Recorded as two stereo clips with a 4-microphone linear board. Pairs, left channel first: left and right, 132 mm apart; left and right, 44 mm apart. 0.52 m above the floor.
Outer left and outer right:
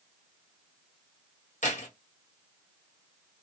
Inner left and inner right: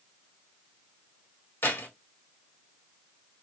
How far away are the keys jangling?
About 1.9 m.